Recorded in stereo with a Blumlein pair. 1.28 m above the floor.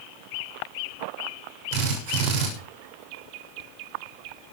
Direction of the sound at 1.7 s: 50° right.